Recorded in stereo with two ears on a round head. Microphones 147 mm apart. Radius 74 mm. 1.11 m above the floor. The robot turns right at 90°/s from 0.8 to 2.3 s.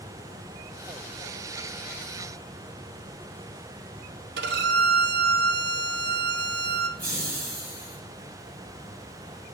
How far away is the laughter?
About 2 m.